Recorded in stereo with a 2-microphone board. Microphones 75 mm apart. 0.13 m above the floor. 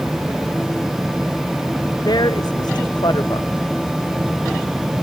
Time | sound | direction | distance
2.0 | a woman speaking | 70° left (ahead or behind) | ?